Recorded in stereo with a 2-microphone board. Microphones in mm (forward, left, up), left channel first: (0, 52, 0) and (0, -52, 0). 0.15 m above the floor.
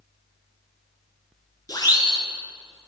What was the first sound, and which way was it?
A siren, 35° left (ahead or behind).